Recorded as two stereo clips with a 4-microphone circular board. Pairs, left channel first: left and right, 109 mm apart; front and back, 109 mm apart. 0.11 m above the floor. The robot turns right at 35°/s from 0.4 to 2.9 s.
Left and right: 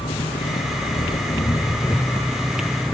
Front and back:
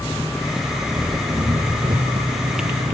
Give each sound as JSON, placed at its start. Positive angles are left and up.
{"t": 0.0, "sound": "an engine running", "azimuth_deg": 95}